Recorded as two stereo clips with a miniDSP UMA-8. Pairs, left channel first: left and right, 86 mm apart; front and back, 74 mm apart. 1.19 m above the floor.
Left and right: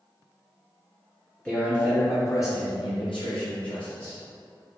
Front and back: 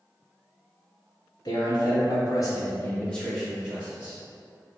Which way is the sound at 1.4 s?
15° left.